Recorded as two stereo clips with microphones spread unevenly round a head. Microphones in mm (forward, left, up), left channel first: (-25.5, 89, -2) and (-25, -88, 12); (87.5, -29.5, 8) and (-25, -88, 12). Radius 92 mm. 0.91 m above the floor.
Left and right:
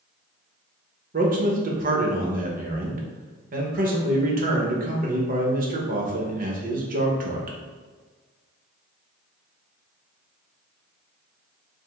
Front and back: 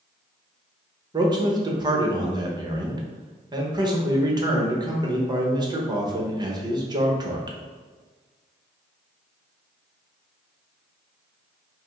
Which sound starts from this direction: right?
A man speaking, at 1.1 s.